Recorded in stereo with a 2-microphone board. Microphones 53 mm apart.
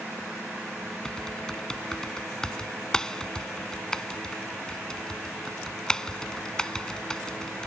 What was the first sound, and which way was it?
Typing on a keyboard, 15° left (ahead or behind).